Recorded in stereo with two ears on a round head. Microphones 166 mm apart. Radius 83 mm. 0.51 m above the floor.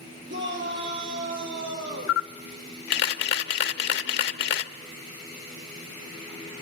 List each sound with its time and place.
0.3 s a shout: 70° right (ahead or behind), 9.5 m; by 2.2 s 65° right (ahead or behind), 11 m
2.1 s a camera shutter: 65° left (ahead or behind), 0.9 m